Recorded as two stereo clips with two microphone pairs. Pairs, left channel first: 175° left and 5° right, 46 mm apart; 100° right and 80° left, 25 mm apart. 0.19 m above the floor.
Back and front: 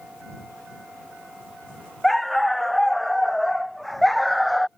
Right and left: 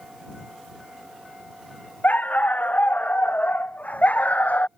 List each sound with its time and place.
2.0 s a dog barking: 95° right